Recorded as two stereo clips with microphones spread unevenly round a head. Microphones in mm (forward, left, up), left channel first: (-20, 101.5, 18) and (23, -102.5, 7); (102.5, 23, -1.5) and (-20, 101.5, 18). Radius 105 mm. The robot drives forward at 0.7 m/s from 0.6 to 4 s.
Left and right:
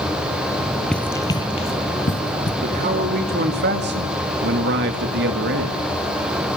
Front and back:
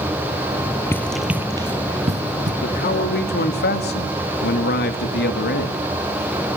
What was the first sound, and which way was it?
Running footsteps, 30° left.